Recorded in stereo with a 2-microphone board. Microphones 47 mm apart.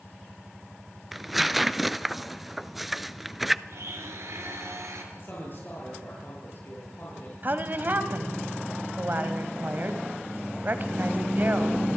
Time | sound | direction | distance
1.1 | tearing paper | 5° right (ahead or behind) | 0.6 m
3.7 | a blender | 75° right (ahead or behind) | 4.5 m
5.1 | a man speaking | 50° left (ahead or behind) | 7 m
7.4 | a woman speaking | 40° right (ahead or behind) | 1.8 m